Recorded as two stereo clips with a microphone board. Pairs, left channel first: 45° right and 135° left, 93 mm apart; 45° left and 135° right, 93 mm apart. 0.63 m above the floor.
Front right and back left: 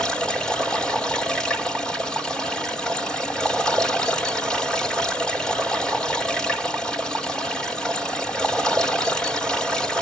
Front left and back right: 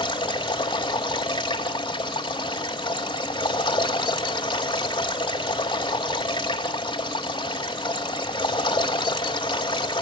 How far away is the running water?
About 1.8 m.